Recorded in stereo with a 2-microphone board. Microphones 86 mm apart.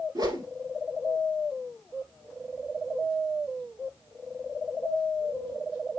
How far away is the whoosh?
About 1.3 m.